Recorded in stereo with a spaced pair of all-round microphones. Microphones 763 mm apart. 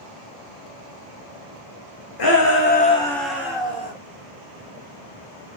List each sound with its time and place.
2.2 s a shout: 35° left (ahead or behind), 0.5 m; by 3.9 s 10° right (ahead or behind), 1.3 m